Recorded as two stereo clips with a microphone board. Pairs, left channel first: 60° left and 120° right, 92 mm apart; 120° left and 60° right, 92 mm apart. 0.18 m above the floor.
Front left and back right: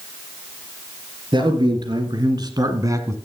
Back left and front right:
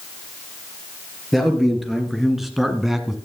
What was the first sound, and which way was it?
A man speaking, 150° right.